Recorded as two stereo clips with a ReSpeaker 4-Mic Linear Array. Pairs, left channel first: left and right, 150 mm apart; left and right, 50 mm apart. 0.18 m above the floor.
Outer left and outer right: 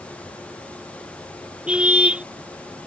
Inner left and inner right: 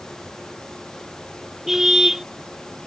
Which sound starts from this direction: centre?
A car horn, at 1.7 s.